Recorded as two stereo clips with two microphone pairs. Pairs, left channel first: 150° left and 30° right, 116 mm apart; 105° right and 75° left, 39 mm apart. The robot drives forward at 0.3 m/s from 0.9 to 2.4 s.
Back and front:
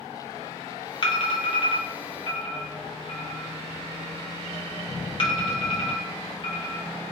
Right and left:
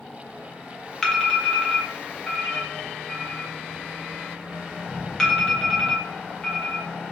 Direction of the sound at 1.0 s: 170° right.